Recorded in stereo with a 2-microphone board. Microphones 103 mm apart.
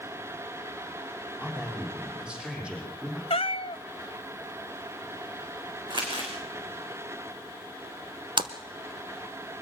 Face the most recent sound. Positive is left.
turn(degrees=-55)  # may be behind; listen again after turning